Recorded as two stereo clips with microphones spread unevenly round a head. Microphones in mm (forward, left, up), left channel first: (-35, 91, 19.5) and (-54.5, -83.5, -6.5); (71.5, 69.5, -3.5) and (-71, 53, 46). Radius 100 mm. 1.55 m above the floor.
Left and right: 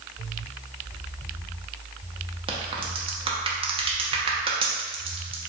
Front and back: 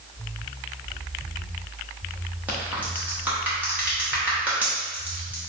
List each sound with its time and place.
2.5 s a crack: 145° right, 1.0 m